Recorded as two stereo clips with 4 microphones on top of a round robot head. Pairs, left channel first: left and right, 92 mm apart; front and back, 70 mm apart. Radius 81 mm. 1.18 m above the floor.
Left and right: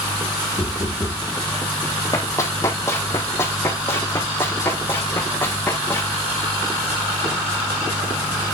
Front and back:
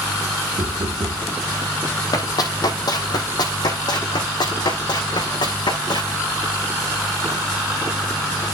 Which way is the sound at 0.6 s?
150° left.